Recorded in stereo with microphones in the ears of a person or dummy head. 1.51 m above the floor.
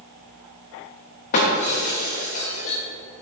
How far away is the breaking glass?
About 1.0 m.